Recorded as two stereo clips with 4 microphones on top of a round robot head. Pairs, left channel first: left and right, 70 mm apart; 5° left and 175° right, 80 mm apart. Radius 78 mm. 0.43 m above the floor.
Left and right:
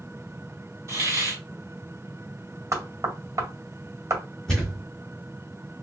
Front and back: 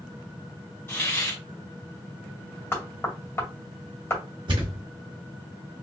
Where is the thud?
175° left, 1.5 m.